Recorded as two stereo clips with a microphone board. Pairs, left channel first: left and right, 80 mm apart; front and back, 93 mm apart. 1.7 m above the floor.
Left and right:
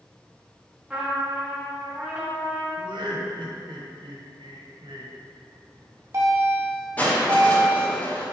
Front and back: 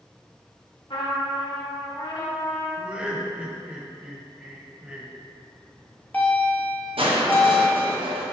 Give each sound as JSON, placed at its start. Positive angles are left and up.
{"t": 0.9, "sound": "a trumpet", "azimuth_deg": -15, "distance_m": 1.9}
{"t": 2.8, "sound": "laughter", "azimuth_deg": -100, "distance_m": 1.5}
{"t": 5.5, "sound": "a bell", "azimuth_deg": -65, "distance_m": 1.9}
{"t": 7.0, "sound": "crushing", "azimuth_deg": 160, "distance_m": 1.4}